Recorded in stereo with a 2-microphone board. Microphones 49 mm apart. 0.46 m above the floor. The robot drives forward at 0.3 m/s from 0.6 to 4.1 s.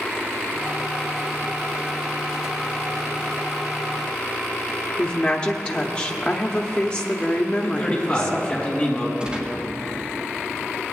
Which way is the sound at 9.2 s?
20° right (ahead or behind).